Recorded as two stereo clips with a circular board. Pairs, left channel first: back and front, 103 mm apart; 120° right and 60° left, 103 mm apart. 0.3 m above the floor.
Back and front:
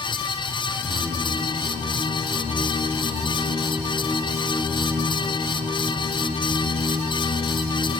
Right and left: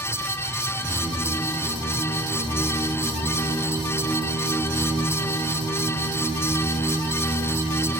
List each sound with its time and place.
0.7 s singing: 65° right, 6 m